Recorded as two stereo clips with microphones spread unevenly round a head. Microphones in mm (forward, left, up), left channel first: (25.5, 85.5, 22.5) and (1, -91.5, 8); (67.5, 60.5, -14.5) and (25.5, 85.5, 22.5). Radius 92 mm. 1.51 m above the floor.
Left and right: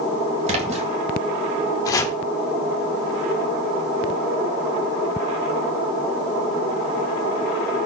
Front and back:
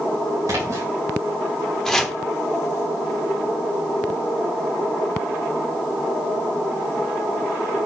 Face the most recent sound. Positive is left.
turn(degrees=130)